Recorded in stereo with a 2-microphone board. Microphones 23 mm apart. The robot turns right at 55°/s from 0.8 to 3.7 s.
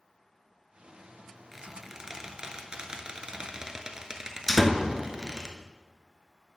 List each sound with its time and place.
1.5 s a squeak: 5° right (ahead or behind), 0.8 m; by 5.5 s 30° right (ahead or behind), 0.8 m
4.5 s a door slam: centre (ahead or behind), 0.8 m